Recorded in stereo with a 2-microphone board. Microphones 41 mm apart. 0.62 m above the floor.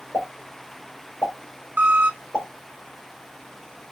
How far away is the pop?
About 2.5 m.